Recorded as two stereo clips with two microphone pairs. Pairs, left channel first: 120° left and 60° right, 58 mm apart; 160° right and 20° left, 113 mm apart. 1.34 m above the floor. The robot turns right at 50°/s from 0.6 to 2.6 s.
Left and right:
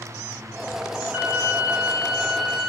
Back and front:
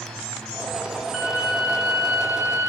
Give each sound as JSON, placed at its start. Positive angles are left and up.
{"t": 1.1, "sound": "a violin", "azimuth_deg": -60, "distance_m": 1.2}